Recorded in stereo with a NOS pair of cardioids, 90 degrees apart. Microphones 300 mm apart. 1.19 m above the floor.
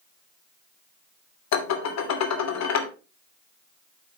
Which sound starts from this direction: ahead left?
Dishes clattering, at 1.5 s.